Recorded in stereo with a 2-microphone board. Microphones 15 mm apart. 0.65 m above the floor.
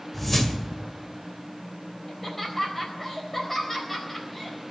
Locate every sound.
0.1 s a whoosh: 15° left (ahead or behind), 1.8 m
2.1 s laughter: 20° left (ahead or behind), 4 m